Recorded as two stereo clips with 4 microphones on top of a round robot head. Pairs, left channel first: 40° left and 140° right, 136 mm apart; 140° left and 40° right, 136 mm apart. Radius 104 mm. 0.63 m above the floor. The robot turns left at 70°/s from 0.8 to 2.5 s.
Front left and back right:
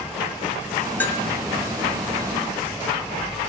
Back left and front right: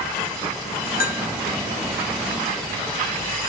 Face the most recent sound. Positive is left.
turn(degrees=15)